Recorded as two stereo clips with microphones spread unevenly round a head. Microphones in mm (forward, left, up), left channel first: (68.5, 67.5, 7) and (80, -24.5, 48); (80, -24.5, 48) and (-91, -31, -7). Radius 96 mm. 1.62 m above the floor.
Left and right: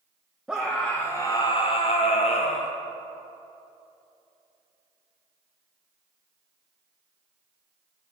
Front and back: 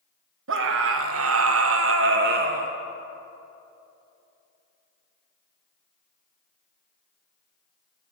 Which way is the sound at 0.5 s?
165° right.